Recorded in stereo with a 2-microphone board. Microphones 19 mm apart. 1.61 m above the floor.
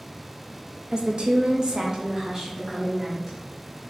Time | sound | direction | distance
0.9 | a woman speaking | 45° right (ahead or behind) | 0.6 m